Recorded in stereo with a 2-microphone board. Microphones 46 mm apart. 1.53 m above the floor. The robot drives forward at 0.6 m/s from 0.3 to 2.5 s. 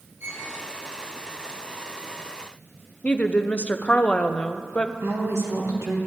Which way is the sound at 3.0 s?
30° left (ahead or behind).